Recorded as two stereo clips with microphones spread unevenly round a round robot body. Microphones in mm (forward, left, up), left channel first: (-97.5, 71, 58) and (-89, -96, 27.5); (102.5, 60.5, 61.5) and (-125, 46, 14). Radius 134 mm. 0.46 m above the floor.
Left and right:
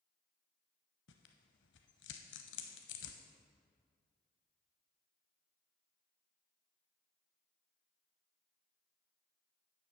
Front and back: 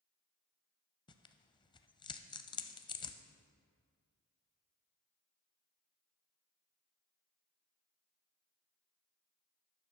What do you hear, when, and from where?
1.1 s tearing paper: 70° left, 0.5 m